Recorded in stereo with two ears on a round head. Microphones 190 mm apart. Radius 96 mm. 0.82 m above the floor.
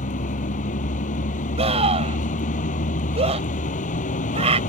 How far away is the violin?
No violin in this recording.